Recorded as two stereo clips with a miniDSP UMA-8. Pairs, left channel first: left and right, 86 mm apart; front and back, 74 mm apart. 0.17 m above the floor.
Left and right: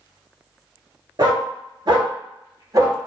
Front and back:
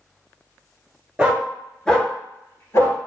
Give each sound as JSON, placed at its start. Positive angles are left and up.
{"t": 1.2, "sound": "a dog barking", "azimuth_deg": -105, "distance_m": 0.9}